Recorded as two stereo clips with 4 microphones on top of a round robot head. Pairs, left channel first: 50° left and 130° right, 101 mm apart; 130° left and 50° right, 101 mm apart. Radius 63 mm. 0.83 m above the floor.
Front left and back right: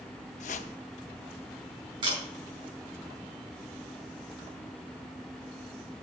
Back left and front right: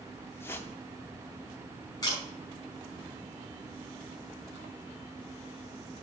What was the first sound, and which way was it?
A whoosh, 60° left.